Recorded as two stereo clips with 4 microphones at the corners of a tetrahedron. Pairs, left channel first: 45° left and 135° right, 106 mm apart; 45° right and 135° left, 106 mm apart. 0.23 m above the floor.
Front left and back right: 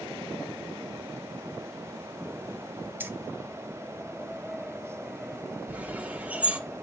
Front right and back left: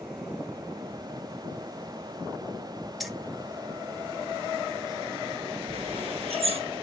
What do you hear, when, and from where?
3.0 s keys jangling: 135° right, 0.9 m
5.7 s a bird: 150° left, 1.2 m